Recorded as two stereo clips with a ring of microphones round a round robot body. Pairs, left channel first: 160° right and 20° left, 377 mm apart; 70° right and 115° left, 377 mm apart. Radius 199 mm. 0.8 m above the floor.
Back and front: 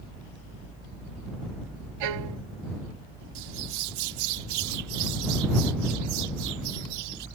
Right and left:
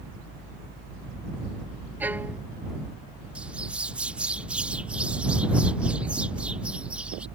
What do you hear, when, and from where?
2.0 s a violin: 25° left
3.4 s a bird: 25° left